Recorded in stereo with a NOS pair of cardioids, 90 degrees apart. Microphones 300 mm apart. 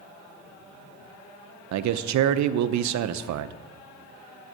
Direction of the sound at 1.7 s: 65° right.